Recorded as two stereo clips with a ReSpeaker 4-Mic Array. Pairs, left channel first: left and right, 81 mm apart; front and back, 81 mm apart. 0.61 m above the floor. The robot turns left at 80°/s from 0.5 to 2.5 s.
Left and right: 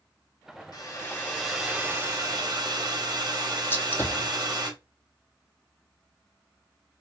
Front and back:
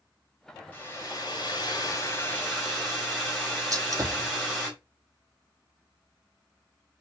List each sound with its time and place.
0.7 s a hair dryer: 60° left, 1.1 m; by 4.7 s 85° right, 1.1 m
3.7 s a gunshot: 145° left, 0.5 m